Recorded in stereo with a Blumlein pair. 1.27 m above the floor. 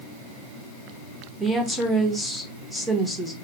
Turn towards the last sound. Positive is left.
turn(degrees=0)